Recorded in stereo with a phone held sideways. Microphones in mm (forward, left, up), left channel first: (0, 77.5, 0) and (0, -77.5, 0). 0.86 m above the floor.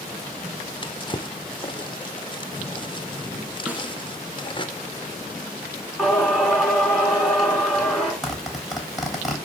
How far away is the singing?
About 6 m.